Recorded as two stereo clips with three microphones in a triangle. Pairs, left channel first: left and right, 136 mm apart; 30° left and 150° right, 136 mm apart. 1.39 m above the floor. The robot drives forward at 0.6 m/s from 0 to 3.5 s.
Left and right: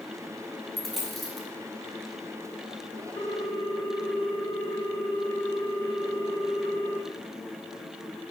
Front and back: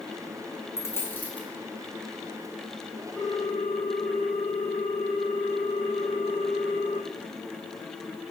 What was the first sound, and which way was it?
A dropped coin, 5° left.